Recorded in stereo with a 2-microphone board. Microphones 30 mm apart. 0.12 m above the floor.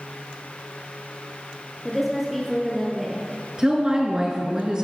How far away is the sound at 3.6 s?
About 1.5 m.